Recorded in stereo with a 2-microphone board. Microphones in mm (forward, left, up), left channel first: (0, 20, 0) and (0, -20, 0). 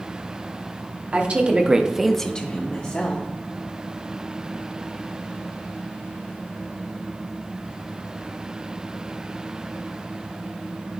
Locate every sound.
1.1 s a woman speaking: 35° right (ahead or behind), 1.2 m; by 3.3 s 40° left (ahead or behind), 1.2 m